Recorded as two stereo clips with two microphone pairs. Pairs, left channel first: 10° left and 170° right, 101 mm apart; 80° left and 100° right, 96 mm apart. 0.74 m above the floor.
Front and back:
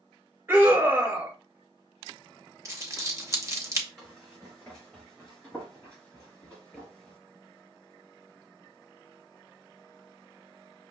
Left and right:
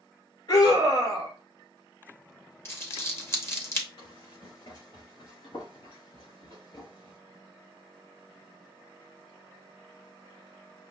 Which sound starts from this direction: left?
Running footsteps, at 4.0 s.